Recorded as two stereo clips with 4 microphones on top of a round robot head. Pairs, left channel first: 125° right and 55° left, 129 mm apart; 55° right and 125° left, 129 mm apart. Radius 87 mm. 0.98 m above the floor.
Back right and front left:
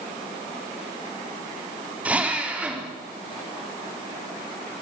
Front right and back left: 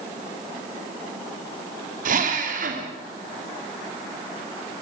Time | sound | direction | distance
2.0 | a drill | 135° left | 3 m